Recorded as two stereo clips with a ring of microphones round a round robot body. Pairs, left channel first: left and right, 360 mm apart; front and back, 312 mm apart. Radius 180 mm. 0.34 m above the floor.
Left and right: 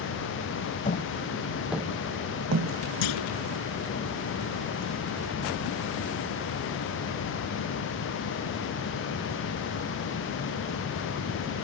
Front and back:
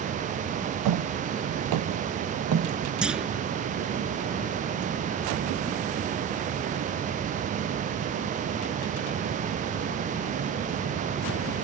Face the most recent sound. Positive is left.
turn(degrees=95)